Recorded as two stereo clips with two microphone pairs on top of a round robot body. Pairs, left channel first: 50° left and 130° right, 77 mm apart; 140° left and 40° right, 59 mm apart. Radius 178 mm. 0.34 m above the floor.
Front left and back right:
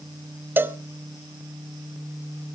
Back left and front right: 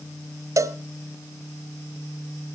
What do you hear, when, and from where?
0.6 s a cowbell: 70° right, 1.0 m